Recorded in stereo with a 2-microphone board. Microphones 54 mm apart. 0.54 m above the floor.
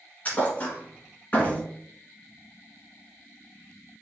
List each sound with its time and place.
0.2 s a thud: 25° left (ahead or behind), 1.3 m